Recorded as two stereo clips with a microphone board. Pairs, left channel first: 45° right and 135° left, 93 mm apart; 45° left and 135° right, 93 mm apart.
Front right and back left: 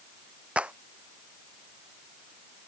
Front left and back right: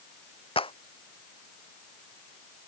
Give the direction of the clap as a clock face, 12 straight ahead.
10 o'clock.